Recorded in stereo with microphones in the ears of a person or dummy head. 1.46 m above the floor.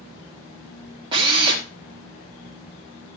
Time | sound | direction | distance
1.1 | a drill | 30° right (ahead or behind) | 2.5 m